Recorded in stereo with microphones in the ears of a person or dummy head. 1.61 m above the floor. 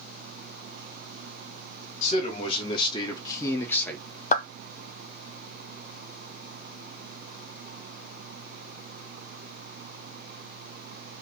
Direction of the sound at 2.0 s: 40° left (ahead or behind).